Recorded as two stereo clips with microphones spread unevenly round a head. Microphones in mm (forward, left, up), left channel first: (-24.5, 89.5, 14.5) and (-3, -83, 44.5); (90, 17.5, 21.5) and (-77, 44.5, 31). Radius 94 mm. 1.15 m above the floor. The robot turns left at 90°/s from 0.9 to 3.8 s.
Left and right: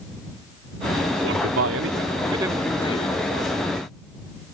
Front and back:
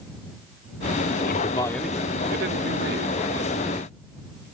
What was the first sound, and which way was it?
A man speaking, 50° right.